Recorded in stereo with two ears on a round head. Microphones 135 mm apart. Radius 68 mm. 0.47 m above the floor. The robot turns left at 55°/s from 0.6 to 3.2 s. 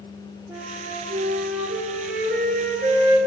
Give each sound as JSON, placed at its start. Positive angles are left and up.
{"t": 0.5, "sound": "a flute", "azimuth_deg": -10, "distance_m": 4.5}